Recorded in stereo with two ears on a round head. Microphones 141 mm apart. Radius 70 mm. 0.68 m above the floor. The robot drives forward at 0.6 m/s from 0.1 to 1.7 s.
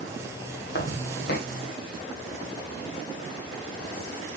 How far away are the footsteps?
About 1.4 m.